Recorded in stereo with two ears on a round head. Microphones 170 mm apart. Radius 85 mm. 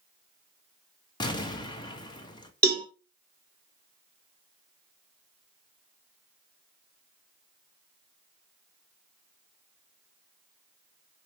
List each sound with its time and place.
1.2 s an explosion: 25° left (ahead or behind), 0.7 m
2.6 s a cowbell: 15° right (ahead or behind), 1.3 m